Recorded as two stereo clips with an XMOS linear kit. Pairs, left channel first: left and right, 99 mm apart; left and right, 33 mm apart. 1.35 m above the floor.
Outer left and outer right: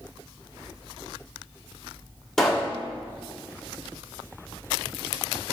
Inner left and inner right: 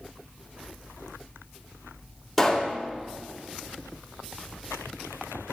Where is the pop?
5° left (ahead or behind), 2.5 m.